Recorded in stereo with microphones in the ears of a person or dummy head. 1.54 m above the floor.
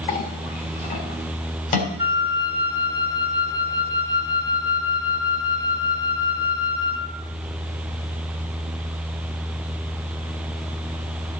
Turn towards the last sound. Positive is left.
turn(degrees=-25)  # may be behind; listen again after turning